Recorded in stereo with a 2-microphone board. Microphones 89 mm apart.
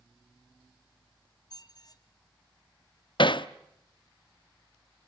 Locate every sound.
1.5 s a squeak: 45° left (ahead or behind), 1.2 m
3.2 s hammering: 60° left (ahead or behind), 0.7 m